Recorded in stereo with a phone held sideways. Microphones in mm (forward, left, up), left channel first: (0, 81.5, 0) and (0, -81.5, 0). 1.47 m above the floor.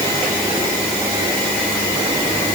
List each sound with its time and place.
Only background noise.